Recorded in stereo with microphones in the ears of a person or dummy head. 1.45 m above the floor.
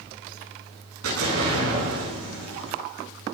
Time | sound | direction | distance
1.0 | an explosion | 80° right | 9 m